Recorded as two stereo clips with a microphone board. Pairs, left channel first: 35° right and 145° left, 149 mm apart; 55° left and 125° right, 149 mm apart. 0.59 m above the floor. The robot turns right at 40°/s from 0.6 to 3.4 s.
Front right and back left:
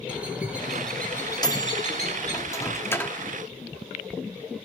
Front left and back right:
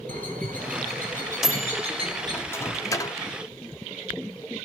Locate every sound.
0.1 s a bird: 135° right, 3.5 m; by 2.4 s 60° right, 3.5 m
1.4 s a microwave: 40° right, 1.0 m; by 3.2 s 30° left, 1.0 m